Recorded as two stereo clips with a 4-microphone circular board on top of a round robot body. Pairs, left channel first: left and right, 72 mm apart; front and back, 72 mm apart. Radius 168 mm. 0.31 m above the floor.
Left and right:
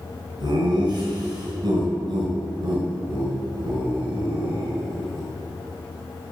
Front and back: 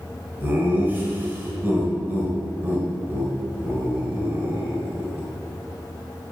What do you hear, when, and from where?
0.4 s laughter: 110° right, 4.5 m